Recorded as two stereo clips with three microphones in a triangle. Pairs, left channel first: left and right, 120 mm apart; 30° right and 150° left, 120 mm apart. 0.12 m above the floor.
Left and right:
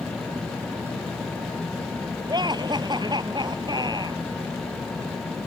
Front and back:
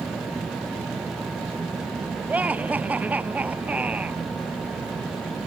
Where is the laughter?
135° right.